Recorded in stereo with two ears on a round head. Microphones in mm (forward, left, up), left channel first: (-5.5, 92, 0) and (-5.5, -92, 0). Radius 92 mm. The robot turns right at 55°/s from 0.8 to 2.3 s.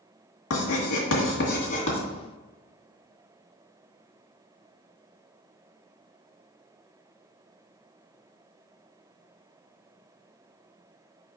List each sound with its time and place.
0.5 s writing: 80° left, 2 m; by 2.0 s 30° left (ahead or behind), 2 m